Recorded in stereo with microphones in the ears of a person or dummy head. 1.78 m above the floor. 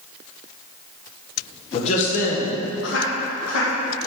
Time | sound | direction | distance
1.7 | a man speaking | 35° left (ahead or behind) | 1.3 m